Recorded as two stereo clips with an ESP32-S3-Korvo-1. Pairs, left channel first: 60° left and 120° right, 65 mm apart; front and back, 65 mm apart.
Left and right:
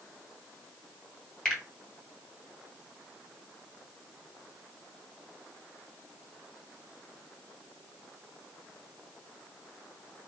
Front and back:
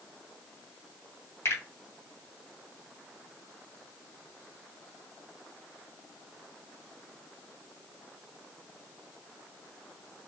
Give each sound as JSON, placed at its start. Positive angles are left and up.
{"t": 1.4, "sound": "a finger snap", "azimuth_deg": -20, "distance_m": 2.5}